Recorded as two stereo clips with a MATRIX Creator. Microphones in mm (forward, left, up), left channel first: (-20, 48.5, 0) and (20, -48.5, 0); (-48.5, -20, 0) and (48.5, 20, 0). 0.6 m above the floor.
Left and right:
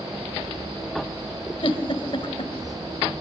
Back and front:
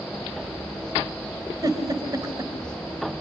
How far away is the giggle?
About 3 m.